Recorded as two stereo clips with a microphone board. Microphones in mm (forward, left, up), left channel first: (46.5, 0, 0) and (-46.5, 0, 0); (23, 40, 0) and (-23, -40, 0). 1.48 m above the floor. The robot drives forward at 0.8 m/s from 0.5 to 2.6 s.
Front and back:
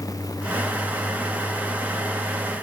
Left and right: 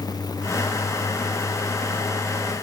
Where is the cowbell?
No cowbell in this recording.